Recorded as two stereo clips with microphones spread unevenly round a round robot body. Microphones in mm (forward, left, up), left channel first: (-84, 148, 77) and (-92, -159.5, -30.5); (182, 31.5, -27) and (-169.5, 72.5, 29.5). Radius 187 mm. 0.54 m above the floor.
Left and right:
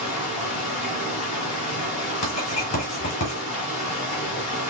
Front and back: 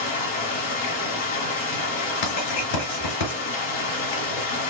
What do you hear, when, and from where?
0.0 s running water: 5° right, 1.4 m
2.2 s writing: 10° left, 4 m